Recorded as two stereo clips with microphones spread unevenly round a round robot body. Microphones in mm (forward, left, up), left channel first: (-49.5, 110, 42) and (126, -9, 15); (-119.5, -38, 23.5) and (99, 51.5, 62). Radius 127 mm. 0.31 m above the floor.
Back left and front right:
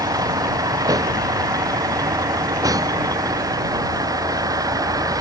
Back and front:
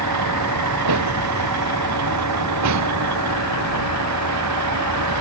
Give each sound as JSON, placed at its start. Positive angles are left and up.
{"t": 0.0, "sound": "a vehicle", "azimuth_deg": 40}